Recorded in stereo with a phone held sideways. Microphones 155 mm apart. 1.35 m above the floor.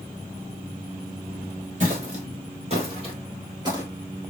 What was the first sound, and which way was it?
Footsteps, 50° right (ahead or behind).